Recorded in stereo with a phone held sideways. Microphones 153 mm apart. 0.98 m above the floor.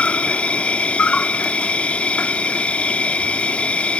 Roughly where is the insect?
Centre.